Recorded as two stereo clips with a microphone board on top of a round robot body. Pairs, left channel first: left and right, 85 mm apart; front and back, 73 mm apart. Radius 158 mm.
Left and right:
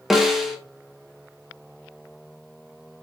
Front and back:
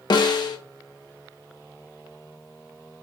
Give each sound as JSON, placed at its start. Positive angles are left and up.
{"t": 0.1, "sound": "a snare drum", "azimuth_deg": -5, "distance_m": 2.0}